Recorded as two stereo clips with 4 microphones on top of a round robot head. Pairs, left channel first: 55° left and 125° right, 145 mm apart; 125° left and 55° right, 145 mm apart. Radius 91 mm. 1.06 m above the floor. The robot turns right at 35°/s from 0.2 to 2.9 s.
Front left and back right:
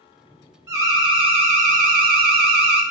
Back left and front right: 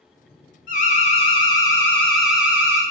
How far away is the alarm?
About 0.7 m.